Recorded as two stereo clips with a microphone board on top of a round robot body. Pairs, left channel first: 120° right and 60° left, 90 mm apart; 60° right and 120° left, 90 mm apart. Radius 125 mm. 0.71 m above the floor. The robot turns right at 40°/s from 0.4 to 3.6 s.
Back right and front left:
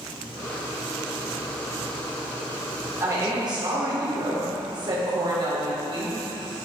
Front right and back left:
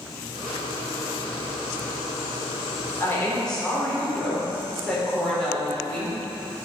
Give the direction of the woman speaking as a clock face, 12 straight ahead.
12 o'clock.